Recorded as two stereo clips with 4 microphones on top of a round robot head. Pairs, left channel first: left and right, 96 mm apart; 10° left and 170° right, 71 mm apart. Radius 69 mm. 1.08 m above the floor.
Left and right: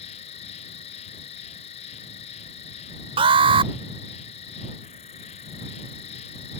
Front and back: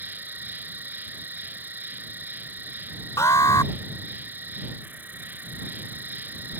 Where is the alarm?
60° right.